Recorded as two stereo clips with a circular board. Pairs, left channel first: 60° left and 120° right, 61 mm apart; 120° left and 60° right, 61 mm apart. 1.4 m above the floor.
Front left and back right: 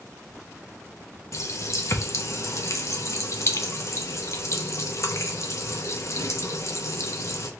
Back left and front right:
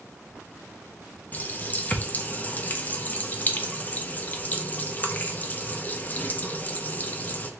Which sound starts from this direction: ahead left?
A running tap, at 1.3 s.